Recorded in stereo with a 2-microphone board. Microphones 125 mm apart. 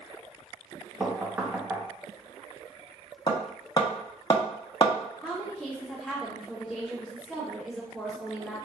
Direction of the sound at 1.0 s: 15° right (ahead or behind).